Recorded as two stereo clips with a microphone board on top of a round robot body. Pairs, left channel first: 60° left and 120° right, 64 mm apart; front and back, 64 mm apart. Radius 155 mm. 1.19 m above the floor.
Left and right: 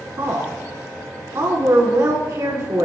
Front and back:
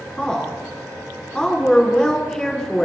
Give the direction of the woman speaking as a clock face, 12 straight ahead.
3 o'clock.